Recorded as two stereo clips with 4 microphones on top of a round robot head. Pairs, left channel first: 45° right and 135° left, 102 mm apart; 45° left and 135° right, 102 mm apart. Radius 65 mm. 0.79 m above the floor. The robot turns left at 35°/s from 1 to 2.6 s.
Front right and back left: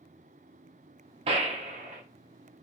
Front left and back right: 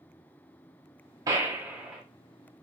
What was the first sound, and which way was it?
A gunshot, 170° left.